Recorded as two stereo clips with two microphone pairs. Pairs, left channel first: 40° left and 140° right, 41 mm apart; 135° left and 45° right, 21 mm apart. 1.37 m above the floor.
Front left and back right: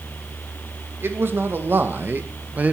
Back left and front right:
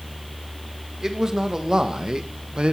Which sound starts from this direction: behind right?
A man speaking, at 1.0 s.